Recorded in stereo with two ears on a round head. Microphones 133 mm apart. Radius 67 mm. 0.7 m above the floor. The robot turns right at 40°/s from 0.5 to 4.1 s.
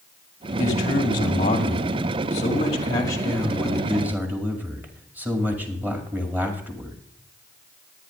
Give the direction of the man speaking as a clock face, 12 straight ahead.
10 o'clock.